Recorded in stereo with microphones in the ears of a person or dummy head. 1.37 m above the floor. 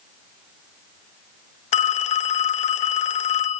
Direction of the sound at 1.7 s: 45° left (ahead or behind).